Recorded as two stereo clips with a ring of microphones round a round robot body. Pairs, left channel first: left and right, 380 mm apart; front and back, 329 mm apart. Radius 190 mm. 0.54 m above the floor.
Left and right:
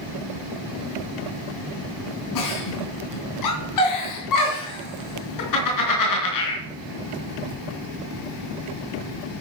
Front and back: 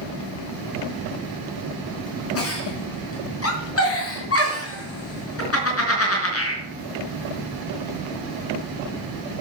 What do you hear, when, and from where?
2.4 s a giggle: 50° left, 4.5 m